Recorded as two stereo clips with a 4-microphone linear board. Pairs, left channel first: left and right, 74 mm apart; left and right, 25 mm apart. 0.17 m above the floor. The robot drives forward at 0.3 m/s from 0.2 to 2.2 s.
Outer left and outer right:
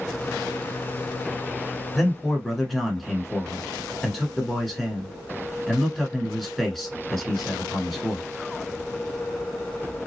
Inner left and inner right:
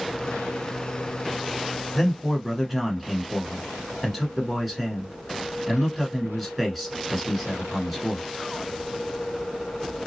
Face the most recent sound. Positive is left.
turn(degrees=5)  # may be behind; listen again after turning